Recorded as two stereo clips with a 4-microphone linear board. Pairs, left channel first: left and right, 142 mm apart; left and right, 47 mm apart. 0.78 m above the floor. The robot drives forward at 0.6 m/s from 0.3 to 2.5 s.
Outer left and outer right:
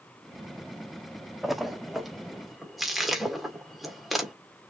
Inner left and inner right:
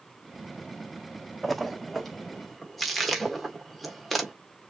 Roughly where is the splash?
Centre.